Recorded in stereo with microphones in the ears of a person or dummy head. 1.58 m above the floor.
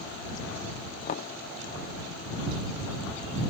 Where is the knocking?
40° left (ahead or behind).